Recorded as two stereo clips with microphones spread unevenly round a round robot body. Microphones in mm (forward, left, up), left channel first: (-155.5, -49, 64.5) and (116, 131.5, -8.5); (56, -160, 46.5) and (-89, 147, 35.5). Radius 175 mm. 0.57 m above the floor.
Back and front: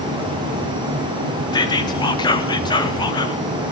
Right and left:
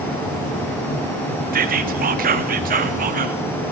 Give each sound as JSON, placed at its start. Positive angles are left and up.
{"t": 1.5, "sound": "whispering", "azimuth_deg": 125, "distance_m": 0.8}